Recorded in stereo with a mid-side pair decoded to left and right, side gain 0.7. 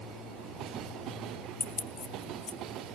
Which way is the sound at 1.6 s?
35° left.